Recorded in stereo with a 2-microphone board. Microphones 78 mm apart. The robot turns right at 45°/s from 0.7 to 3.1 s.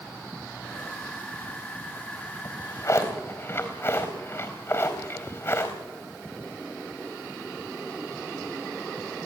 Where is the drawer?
60° left (ahead or behind), 3.5 m; by 5.8 s 35° left (ahead or behind), 3.5 m.